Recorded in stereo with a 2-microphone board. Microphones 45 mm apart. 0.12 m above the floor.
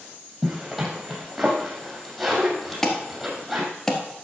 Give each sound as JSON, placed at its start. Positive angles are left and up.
{"t": 0.4, "sound": "a zipper", "side_deg": -5, "distance_m": 3.0}
{"t": 2.8, "sound": "an alarm", "side_deg": 10, "distance_m": 1.6}